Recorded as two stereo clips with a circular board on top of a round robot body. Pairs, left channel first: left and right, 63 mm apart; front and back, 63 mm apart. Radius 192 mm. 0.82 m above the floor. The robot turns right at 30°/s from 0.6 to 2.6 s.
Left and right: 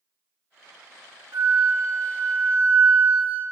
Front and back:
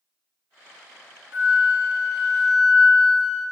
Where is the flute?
125° right, 1.3 m; by 3.4 s 85° right, 1.3 m.